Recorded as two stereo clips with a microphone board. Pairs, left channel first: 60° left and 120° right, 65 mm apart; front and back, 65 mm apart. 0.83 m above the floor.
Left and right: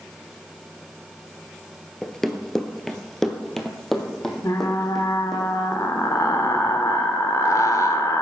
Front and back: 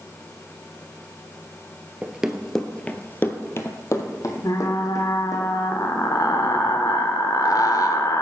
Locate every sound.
2.0 s running footsteps: 145° left, 0.8 m; by 5.4 s 25° right, 2 m
4.4 s frying: 25° left, 1.2 m